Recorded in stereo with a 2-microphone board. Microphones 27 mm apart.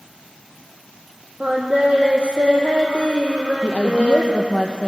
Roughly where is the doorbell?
I don't hear a doorbell.